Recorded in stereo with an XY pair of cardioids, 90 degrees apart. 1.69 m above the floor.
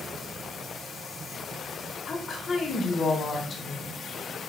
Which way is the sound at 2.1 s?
50° left.